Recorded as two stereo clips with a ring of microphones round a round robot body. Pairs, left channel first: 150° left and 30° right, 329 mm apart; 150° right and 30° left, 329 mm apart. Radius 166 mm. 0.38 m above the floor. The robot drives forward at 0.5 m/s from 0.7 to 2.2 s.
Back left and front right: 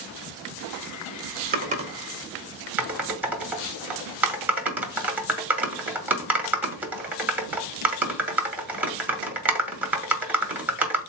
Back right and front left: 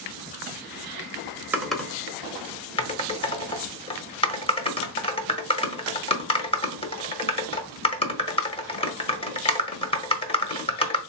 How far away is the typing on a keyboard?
About 0.8 m.